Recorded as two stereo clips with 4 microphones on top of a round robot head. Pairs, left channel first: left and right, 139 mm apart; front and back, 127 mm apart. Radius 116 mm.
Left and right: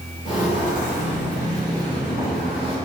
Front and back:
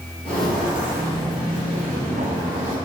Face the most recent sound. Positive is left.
turn(degrees=170)